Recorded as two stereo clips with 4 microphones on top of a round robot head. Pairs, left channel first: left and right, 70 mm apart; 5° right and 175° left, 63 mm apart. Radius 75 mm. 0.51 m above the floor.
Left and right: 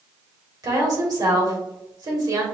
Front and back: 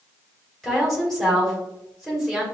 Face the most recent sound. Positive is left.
turn(degrees=-90)